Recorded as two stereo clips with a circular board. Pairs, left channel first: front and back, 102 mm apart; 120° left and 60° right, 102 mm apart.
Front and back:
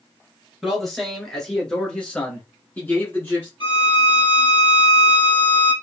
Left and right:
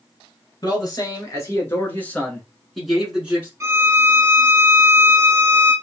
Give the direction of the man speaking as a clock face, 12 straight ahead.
9 o'clock.